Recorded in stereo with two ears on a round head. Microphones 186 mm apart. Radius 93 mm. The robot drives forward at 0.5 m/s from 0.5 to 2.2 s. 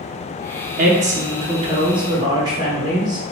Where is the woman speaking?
40° right (ahead or behind), 0.6 m; by 3.2 s 20° right (ahead or behind), 1.1 m.